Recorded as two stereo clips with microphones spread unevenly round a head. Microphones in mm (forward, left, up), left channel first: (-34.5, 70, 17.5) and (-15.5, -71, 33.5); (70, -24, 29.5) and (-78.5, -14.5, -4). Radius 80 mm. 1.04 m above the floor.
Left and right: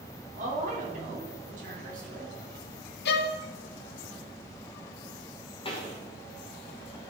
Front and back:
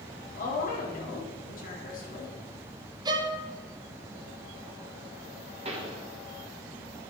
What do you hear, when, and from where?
0.3 s a woman speaking: 40° right, 2.5 m
3.0 s a violin: 105° left, 0.5 m
5.7 s a pop: 140° left, 1.4 m